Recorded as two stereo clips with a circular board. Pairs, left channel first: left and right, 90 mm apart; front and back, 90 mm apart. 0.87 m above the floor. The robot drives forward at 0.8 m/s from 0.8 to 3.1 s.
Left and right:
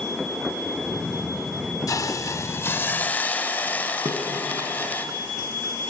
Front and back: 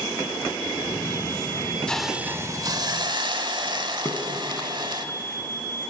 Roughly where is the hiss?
Left.